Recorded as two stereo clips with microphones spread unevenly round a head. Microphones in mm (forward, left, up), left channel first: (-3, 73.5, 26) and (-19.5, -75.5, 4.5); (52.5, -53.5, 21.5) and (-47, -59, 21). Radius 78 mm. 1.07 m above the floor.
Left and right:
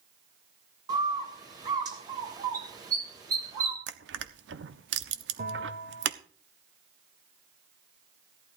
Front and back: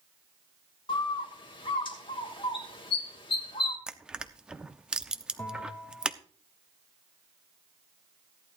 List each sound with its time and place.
0.9 s a bird: 30° right, 2.5 m
3.9 s crushing: 95° right, 0.9 m
5.4 s a bell: 65° right, 2.5 m